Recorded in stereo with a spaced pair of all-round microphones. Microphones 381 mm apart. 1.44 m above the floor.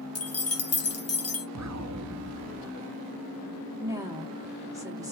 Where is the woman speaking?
10° right (ahead or behind), 1.2 m.